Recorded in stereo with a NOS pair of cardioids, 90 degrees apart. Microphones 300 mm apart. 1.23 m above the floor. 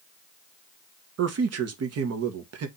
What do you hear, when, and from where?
1.2 s a man speaking: 55° right, 1.3 m